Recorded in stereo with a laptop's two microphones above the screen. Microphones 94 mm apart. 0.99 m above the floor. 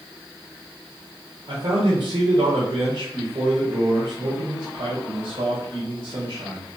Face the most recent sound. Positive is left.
turn(degrees=-65)  # may be behind; listen again after turning